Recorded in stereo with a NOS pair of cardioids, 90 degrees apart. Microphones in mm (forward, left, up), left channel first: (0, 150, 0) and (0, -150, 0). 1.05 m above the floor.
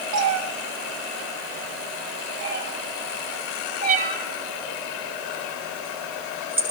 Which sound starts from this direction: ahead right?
A cat meowing, at 0.1 s.